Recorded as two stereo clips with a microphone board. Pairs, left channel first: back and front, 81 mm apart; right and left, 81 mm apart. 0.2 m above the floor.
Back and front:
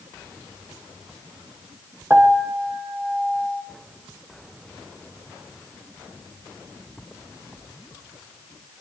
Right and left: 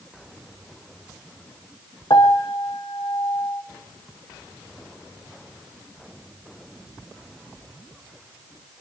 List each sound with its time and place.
2.1 s a piano: 65° right, 1.5 m